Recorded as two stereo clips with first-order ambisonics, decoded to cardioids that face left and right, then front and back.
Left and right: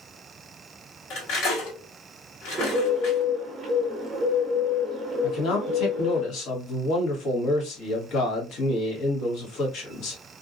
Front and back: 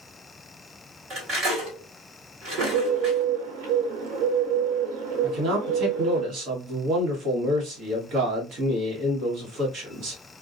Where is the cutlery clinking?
125° left, 1.6 m.